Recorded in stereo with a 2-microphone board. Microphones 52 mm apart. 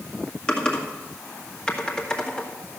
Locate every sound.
0.5 s typing on a keyboard: 15° left (ahead or behind), 1.9 m